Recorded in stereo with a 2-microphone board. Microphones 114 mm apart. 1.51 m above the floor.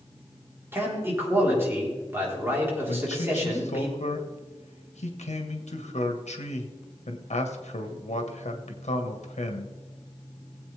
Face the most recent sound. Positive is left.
turn(degrees=80)